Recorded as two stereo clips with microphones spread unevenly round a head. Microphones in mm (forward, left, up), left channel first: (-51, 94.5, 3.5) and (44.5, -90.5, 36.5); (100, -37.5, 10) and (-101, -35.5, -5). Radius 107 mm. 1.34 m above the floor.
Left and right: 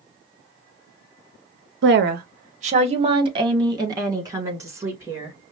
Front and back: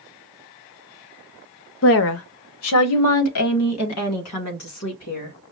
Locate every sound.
1.8 s a woman speaking: 25° right, 0.6 m; by 5.3 s 15° left, 2 m